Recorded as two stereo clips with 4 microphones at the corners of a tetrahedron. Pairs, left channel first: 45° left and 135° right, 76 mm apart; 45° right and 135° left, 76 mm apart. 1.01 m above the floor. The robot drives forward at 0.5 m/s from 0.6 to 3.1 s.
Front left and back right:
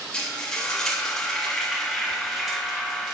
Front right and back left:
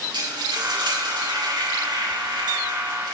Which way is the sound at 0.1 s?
125° left.